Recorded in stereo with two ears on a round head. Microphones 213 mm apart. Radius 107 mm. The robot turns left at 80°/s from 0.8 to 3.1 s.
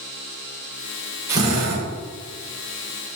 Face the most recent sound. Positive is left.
turn(degrees=-155)